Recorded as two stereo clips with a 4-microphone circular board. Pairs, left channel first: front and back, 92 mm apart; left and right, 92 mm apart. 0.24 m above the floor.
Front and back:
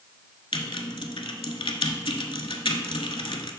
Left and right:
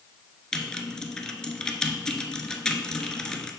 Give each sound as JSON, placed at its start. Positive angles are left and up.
{"t": 0.5, "sound": "typing on a keyboard", "azimuth_deg": 10, "distance_m": 0.6}